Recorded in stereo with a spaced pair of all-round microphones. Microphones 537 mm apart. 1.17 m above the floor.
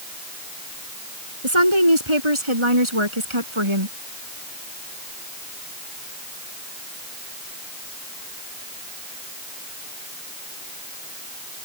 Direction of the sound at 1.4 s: 60° right (ahead or behind).